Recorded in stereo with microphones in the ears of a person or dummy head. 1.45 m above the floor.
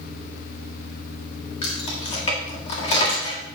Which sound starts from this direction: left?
Keys jangling, at 1.6 s.